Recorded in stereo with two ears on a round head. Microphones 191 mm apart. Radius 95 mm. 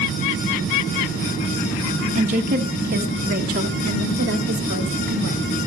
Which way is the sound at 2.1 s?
35° right (ahead or behind).